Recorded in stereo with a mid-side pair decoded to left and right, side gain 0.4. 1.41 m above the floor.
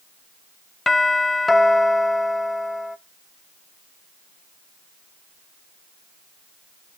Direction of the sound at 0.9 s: 25° left.